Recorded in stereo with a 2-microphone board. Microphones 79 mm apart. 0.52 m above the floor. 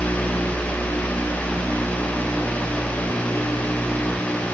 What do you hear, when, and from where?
Only background noise.